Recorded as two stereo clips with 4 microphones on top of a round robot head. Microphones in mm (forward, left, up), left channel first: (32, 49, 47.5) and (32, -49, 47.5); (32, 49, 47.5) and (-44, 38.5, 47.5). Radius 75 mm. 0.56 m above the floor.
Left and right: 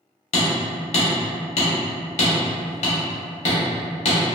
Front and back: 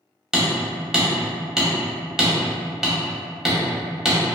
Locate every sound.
0.3 s hammering: 105° left, 0.9 m